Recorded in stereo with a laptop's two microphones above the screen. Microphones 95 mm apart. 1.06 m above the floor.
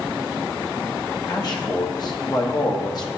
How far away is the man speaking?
About 1.0 m.